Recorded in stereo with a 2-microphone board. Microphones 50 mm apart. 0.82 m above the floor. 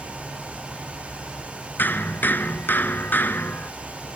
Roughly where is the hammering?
Left.